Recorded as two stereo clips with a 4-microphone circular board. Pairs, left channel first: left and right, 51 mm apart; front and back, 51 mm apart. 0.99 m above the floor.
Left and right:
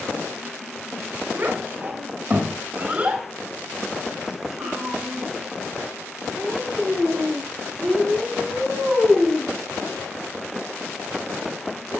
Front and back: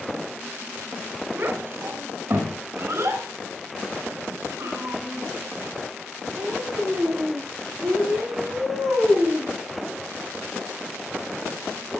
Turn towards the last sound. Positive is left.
turn(degrees=160)